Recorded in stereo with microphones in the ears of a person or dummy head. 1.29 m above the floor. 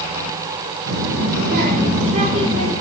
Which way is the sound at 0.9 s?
70° right (ahead or behind).